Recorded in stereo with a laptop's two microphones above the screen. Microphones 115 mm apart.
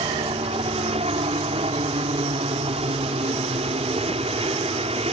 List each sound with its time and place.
0.0 s a helicopter: 60° right (ahead or behind)